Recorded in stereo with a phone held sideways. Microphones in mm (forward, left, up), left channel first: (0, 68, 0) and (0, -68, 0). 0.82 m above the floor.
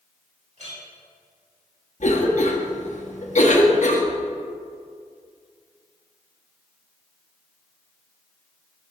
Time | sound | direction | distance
0.6 | a clink | 60° right (ahead or behind) | 3.5 m
2.0 | a cough | 60° left (ahead or behind) | 1.4 m